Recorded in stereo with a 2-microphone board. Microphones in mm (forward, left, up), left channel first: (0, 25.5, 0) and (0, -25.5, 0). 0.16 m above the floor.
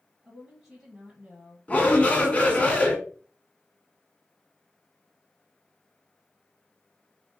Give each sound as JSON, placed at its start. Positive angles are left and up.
{"t": 0.2, "sound": "a woman speaking", "side_deg": -5, "distance_m": 2.0}
{"t": 1.7, "sound": "a shout", "side_deg": 25, "distance_m": 1.5}